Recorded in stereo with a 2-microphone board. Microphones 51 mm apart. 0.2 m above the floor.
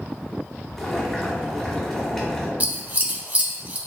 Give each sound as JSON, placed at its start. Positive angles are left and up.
{"t": 0.8, "sound": "boiling", "side_deg": 10, "distance_m": 1.2}
{"t": 2.6, "sound": "scissors", "side_deg": -35, "distance_m": 0.6}